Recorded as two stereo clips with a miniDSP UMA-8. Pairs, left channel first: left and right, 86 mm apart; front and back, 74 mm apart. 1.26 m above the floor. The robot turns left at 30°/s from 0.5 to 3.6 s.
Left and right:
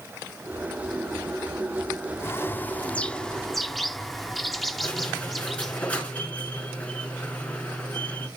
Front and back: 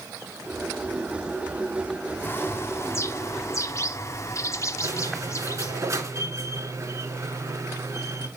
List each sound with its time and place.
2.2 s a bird: 45° left, 0.6 m; by 5.8 s straight ahead, 0.6 m
4.8 s a squeak: 160° left, 1.8 m